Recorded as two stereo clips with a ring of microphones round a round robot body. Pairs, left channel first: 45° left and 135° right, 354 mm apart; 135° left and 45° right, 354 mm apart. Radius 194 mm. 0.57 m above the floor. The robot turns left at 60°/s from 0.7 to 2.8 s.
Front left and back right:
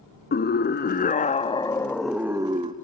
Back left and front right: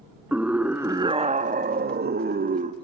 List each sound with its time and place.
0.3 s a scream: 35° left, 1.2 m; by 2.7 s 85° right, 1.2 m